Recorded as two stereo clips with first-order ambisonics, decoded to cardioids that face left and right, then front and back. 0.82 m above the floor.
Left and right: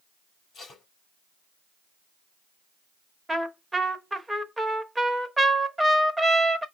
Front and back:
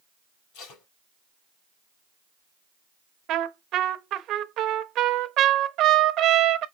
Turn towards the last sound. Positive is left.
turn(degrees=-170)